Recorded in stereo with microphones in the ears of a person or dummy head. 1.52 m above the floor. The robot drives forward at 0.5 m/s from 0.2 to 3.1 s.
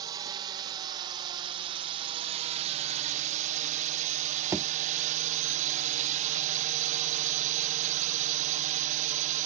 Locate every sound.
0.0 s a drone: 20° right (ahead or behind); by 9.5 s 35° right (ahead or behind)
4.5 s a thud: 10° right (ahead or behind)